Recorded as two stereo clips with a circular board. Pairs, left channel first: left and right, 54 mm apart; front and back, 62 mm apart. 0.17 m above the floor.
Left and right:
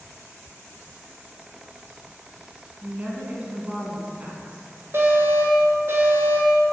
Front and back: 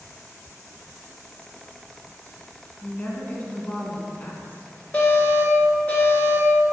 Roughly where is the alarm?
Ahead right.